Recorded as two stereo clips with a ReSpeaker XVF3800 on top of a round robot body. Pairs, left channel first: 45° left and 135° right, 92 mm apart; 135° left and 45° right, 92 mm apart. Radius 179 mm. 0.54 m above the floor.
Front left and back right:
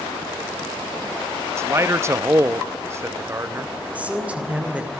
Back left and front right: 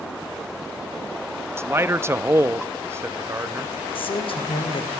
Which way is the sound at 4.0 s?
150° left.